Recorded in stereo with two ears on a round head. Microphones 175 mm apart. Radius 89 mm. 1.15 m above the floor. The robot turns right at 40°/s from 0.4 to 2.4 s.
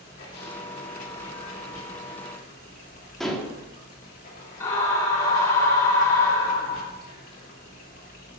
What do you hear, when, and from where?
0.0 s running water: 50° left, 2.5 m; by 8.4 s 130° left, 2.5 m
3.2 s dishes clattering: centre (ahead or behind), 1.7 m
4.6 s a scream: 15° left (ahead or behind), 3.5 m